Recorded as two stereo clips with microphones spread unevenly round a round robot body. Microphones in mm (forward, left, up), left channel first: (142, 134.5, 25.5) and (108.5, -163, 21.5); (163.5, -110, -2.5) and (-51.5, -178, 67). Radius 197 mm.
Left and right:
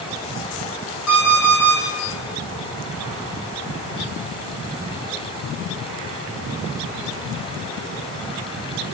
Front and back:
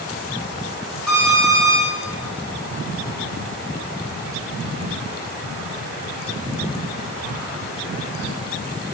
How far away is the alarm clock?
About 5 m.